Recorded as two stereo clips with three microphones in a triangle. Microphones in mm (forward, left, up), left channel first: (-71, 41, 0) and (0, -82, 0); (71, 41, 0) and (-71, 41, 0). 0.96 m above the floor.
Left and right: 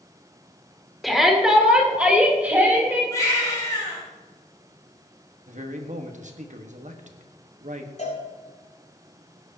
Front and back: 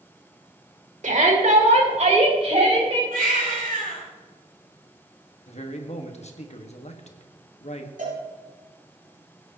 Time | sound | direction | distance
1.0 | a shout | 150° right | 2 m
3.1 | a baby crying | 170° right | 5 m
5.5 | a man speaking | 35° right | 1.3 m
8.0 | a cowbell | 155° left | 5.5 m